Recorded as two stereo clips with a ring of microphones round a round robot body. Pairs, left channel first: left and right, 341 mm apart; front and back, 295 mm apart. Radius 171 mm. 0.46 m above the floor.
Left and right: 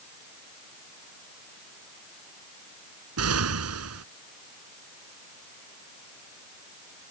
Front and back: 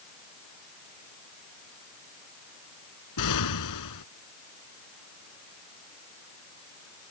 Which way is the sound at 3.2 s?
40° right.